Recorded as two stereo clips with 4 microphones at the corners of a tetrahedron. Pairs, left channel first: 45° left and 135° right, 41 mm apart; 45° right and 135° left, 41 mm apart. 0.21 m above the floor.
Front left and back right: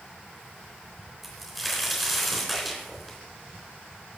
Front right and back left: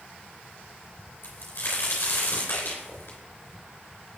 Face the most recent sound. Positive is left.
turn(degrees=-45)